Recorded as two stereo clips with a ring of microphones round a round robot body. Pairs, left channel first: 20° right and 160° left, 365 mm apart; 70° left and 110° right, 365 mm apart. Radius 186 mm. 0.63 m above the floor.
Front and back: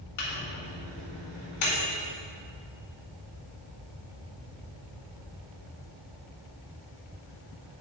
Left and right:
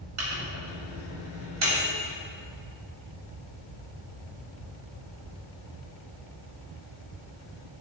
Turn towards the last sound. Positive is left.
turn(degrees=-65)